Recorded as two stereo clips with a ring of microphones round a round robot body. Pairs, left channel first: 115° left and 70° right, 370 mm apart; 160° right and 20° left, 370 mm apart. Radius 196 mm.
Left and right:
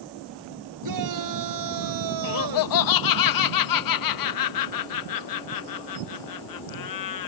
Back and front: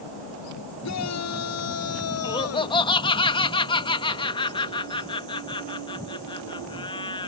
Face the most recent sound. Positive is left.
turn(degrees=125)